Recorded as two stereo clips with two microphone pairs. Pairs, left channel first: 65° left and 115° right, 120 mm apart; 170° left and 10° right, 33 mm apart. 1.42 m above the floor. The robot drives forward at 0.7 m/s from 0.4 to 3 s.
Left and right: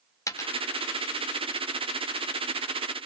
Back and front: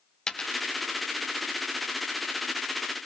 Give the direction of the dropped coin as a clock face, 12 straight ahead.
8 o'clock.